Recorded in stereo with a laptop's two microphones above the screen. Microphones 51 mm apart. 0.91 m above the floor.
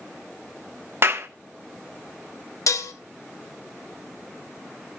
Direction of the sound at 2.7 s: 80° left.